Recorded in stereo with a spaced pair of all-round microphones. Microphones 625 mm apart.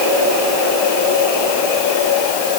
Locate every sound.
Only background noise.